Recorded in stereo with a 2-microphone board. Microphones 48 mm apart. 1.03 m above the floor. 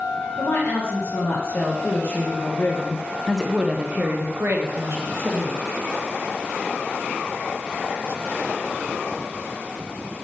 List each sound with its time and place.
0.4 s a woman speaking: 75° left (ahead or behind), 2.0 m; by 5.6 s 70° right (ahead or behind), 1.5 m